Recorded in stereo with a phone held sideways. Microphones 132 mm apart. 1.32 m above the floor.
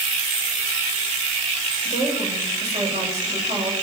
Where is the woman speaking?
55° right (ahead or behind), 8 m.